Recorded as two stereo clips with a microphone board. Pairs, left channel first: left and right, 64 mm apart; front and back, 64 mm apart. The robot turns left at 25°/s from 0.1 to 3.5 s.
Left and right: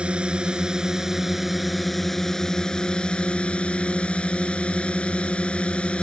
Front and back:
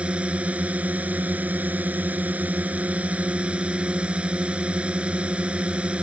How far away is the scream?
No scream in this recording.